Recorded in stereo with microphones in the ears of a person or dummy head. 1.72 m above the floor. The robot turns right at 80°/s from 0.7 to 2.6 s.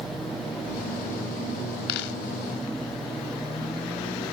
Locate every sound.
1.9 s a dropped coin: 65° left (ahead or behind); by 2.2 s 80° left